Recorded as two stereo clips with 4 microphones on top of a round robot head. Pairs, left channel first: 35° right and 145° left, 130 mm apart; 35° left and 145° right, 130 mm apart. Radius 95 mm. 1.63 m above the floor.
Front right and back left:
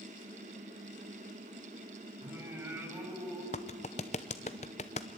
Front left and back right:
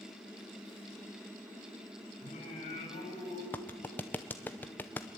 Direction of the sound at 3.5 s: 35° right.